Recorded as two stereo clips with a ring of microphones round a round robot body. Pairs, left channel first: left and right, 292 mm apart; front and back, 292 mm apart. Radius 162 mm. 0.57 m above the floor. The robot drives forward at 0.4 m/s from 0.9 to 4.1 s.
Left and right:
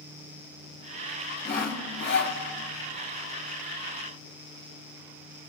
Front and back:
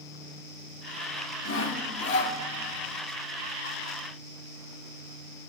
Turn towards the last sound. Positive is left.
turn(degrees=95)